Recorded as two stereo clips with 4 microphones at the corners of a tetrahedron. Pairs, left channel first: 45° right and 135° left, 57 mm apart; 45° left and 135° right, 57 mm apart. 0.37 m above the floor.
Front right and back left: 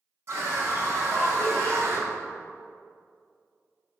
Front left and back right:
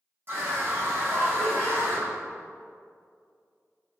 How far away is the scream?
About 3.5 m.